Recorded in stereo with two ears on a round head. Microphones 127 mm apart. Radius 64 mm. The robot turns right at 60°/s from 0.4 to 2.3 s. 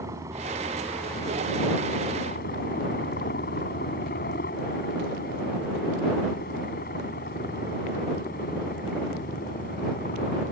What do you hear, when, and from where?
0.0 s a helicopter: 20° right (ahead or behind); by 10.5 s 65° left (ahead or behind)